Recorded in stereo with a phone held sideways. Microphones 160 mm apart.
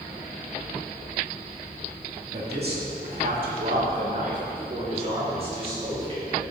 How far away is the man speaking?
About 2.0 m.